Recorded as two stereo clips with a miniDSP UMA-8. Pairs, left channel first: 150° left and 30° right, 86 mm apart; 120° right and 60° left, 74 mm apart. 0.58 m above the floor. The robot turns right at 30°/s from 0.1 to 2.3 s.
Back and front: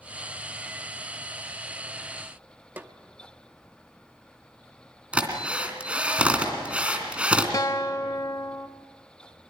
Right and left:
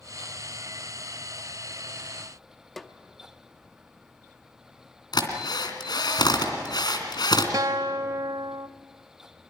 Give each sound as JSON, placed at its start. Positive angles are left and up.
{"t": 2.8, "sound": "a snare drum", "azimuth_deg": -30, "distance_m": 0.9}
{"t": 5.1, "sound": "a drill", "azimuth_deg": -105, "distance_m": 2.5}
{"t": 7.5, "sound": "a guitar", "azimuth_deg": 100, "distance_m": 0.5}